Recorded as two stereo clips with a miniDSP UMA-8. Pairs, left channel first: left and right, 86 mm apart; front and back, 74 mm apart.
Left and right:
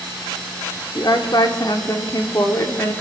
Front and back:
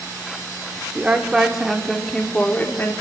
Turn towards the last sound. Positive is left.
turn(degrees=45)